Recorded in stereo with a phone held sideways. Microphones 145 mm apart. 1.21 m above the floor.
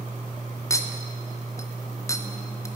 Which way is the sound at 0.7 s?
20° left (ahead or behind).